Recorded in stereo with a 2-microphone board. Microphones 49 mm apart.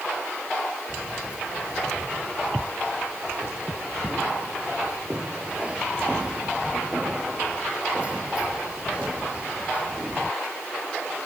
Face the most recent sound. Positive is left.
turn(degrees=-25)  # may be behind; listen again after turning